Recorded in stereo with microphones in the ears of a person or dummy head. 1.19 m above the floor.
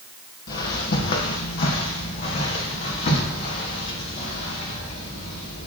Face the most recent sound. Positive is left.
turn(degrees=45)  # may be behind; listen again after turning